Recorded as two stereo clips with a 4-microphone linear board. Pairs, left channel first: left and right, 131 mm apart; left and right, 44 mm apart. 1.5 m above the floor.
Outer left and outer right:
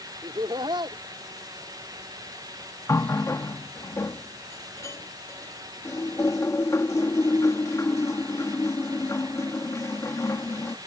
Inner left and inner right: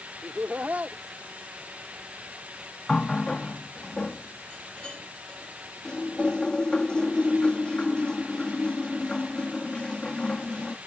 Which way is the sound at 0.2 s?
35° right (ahead or behind).